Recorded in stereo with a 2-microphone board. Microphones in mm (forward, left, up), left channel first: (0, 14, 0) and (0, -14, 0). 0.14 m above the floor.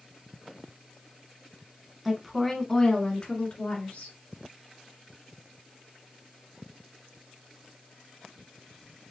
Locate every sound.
2.0 s a woman speaking: centre (ahead or behind), 1.1 m; by 4.2 s 55° left (ahead or behind), 1.9 m